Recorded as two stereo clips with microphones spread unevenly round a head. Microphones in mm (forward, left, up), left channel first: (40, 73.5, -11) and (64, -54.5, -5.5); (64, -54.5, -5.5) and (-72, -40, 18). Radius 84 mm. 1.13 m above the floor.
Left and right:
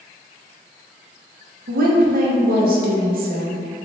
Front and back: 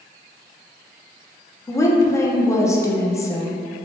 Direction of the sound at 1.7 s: 75° right.